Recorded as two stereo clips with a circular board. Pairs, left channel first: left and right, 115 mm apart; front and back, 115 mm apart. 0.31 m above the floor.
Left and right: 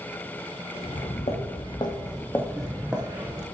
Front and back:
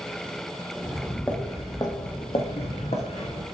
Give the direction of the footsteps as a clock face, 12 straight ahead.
9 o'clock.